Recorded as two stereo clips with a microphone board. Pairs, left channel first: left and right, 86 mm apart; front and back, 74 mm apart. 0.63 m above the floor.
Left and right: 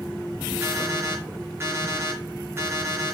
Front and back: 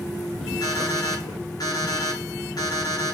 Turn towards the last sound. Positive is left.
turn(degrees=-25)